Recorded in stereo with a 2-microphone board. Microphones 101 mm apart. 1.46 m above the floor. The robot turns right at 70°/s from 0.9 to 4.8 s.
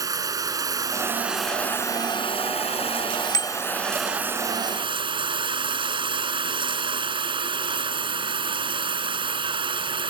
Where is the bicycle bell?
40° left (ahead or behind); by 3.5 s 50° left (ahead or behind).